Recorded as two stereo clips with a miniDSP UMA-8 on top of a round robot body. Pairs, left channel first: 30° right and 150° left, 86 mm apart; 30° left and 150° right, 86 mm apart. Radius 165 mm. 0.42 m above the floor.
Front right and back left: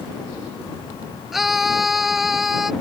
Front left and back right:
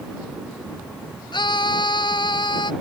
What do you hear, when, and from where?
1.3 s a scream: 60° left